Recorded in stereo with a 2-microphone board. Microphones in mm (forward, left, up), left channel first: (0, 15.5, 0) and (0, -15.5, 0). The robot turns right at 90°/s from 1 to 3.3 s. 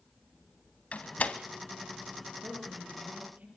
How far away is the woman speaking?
About 6.5 m.